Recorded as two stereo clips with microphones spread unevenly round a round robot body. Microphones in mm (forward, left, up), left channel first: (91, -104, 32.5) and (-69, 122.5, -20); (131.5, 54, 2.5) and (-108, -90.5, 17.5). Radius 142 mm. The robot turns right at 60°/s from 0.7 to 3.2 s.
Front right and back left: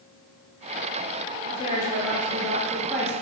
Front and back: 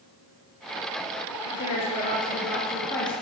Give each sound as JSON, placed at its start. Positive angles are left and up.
{"t": 1.5, "sound": "a woman speaking", "azimuth_deg": 5, "distance_m": 0.8}